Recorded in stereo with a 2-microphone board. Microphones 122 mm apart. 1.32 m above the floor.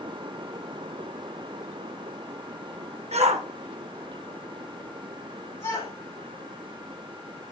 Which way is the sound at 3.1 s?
65° right (ahead or behind).